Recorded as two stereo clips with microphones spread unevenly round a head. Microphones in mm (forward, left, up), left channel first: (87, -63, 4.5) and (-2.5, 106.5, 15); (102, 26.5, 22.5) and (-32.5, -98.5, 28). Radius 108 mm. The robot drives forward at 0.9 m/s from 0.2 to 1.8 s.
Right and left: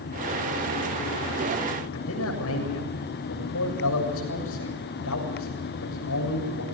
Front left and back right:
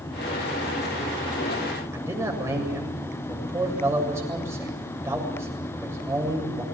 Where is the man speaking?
60° right, 7.5 m.